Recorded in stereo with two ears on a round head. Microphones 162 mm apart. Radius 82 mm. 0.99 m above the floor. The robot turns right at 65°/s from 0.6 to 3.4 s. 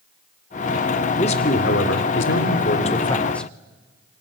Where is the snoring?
I don't hear snoring.